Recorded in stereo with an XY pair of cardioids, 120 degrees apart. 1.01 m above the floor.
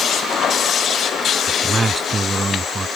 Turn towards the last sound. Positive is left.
turn(degrees=-20)